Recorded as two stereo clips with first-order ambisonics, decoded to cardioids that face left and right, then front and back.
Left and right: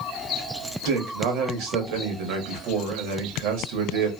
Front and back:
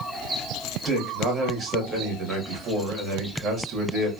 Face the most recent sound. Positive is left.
turn(degrees=-115)